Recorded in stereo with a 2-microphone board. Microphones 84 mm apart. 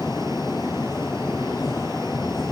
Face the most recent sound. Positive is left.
No sound to turn to.